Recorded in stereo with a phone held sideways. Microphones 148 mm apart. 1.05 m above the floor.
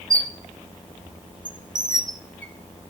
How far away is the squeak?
About 0.7 m.